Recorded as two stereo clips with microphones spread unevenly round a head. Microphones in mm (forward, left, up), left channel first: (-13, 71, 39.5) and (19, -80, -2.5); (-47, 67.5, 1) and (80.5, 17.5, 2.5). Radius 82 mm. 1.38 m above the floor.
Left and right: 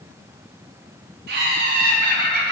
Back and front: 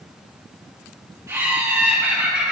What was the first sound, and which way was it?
Laughter, 95° right.